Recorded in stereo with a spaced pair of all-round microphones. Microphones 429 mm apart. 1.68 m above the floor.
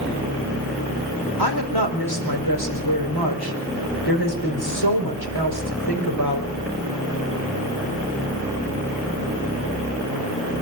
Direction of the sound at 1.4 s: 65° left (ahead or behind).